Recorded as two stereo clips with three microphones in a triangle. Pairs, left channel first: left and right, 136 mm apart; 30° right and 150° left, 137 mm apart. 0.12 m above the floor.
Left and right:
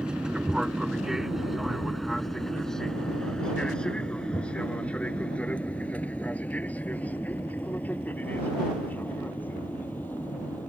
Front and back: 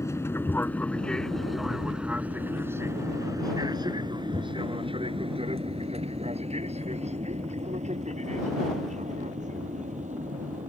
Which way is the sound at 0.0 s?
15° right.